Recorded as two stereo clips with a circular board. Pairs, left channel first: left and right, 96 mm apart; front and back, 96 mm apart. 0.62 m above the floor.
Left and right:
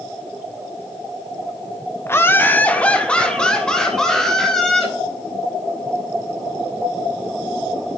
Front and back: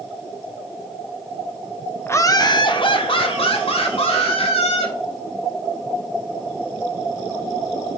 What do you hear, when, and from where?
2.1 s laughter: 45° left, 0.9 m; by 4.9 s 5° left, 4 m